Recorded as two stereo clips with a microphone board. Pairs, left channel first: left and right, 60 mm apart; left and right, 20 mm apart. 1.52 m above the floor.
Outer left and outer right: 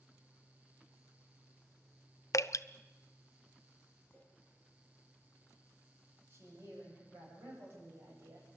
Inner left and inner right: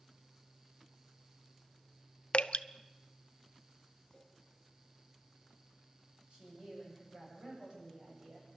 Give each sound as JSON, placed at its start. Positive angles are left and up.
{"t": 2.3, "sound": "dripping", "side_deg": 60, "distance_m": 0.5}
{"t": 4.1, "sound": "a clink", "side_deg": 30, "distance_m": 7.0}
{"t": 6.3, "sound": "a woman speaking", "side_deg": -45, "distance_m": 9.5}